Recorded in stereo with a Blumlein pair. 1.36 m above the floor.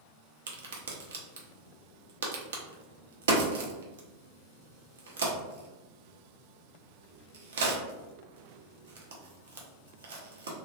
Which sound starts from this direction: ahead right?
A crack, at 0.5 s.